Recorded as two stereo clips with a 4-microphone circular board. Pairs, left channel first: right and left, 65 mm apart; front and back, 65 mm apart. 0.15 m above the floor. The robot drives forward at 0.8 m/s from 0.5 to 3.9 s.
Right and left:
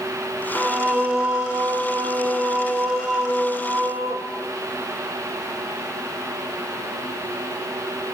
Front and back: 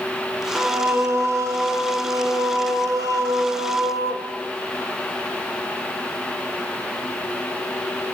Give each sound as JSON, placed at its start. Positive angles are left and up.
{"t": 0.6, "sound": "singing", "azimuth_deg": 145, "distance_m": 1.2}